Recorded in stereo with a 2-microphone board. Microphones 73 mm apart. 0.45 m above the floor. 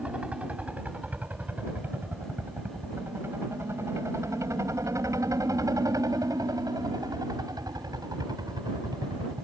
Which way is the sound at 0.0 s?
15° right (ahead or behind).